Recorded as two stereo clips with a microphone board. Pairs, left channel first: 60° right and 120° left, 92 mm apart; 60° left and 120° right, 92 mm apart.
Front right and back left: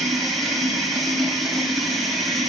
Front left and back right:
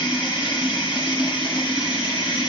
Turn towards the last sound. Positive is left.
turn(degrees=30)